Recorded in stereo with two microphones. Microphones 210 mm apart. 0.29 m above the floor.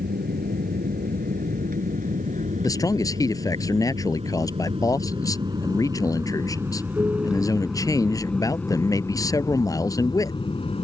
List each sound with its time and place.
0.0 s an aircraft: 45° right (ahead or behind); by 10.8 s 30° left (ahead or behind)
2.6 s a man speaking: 15° left (ahead or behind)